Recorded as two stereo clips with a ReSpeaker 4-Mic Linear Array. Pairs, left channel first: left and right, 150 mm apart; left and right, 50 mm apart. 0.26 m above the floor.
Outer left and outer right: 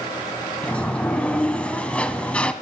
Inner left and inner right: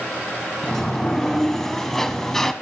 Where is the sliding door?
10° left (ahead or behind), 0.7 m.